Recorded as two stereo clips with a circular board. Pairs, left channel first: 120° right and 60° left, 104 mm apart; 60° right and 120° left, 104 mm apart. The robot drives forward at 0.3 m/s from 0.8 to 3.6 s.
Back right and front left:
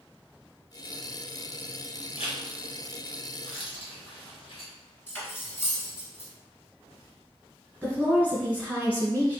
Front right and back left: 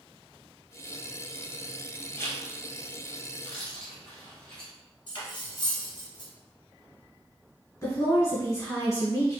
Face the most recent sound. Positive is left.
turn(degrees=-55)